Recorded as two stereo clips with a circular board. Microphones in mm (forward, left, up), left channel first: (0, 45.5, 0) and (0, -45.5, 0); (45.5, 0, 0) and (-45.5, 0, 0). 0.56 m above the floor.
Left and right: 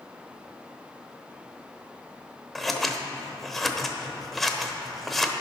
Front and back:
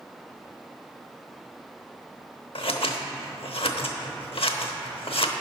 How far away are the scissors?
About 0.8 m.